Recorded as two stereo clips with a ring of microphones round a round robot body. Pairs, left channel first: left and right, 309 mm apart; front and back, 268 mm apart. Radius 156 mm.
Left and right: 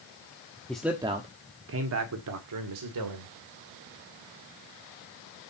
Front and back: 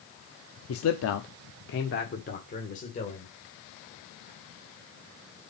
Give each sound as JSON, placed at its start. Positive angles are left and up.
{"t": 0.7, "sound": "a man speaking", "azimuth_deg": 5, "distance_m": 0.9}